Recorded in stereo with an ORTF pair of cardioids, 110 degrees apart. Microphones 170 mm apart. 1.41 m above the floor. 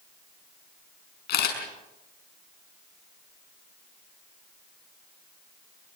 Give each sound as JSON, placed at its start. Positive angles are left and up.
{"t": 1.3, "sound": "a camera shutter", "azimuth_deg": 65, "distance_m": 6.0}